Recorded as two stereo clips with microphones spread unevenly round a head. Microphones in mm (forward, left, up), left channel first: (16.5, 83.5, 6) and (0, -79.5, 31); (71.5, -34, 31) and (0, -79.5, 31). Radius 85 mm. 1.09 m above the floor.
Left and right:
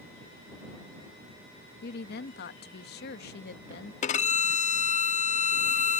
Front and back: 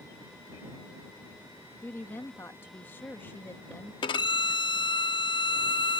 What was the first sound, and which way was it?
A woman speaking, 105° left.